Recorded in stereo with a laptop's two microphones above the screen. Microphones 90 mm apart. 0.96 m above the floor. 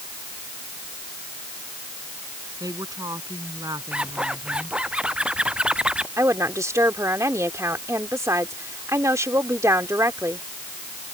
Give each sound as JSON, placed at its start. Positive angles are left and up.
{"t": 2.6, "sound": "a woman speaking", "side_deg": -45}
{"t": 3.9, "sound": "a zipper", "side_deg": -10}
{"t": 6.2, "sound": "a woman speaking", "side_deg": -30}